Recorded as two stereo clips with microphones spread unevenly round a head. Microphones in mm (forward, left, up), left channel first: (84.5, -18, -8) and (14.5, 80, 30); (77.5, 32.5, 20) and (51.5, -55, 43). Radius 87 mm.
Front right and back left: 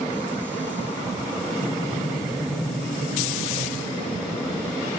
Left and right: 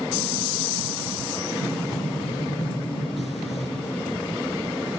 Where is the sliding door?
50° left, 3.5 m.